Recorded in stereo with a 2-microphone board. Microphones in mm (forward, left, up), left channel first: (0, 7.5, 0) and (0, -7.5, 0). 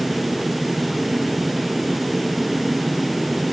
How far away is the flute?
No flute in this recording.